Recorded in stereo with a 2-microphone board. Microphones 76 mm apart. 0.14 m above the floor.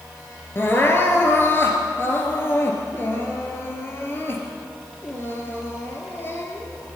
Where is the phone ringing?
I don't hear a phone ringing.